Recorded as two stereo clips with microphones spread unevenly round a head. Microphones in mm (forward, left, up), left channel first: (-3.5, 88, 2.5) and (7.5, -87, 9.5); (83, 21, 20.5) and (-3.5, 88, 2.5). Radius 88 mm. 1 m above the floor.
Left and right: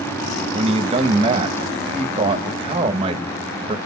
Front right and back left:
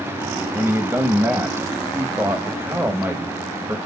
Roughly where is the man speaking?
Behind right.